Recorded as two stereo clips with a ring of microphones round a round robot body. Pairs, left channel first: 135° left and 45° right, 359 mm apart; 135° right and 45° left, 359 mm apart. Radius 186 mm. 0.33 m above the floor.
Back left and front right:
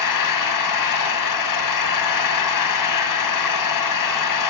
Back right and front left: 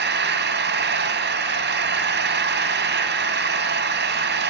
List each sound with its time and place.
0.0 s an engine running: 105° left, 2.5 m